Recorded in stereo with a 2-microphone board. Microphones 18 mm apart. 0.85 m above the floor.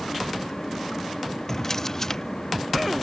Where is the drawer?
25° left (ahead or behind).